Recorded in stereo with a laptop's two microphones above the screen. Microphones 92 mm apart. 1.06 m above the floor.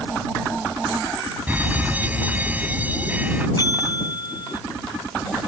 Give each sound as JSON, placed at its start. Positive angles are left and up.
{"t": 1.5, "sound": "a fire alarm", "side_deg": -15}
{"t": 3.6, "sound": "a bell", "side_deg": 50}